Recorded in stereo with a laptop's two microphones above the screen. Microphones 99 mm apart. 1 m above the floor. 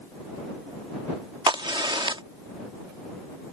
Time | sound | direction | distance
1.5 | a crack | 55° right (ahead or behind) | ?